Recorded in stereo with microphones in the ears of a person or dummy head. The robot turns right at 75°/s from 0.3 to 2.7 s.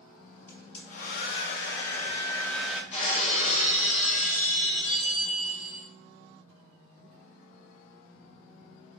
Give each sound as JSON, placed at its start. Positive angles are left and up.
{"t": 0.5, "sound": "a hair dryer", "azimuth_deg": 15, "distance_m": 0.5}
{"t": 2.9, "sound": "breaking glass", "side_deg": 35, "distance_m": 1.6}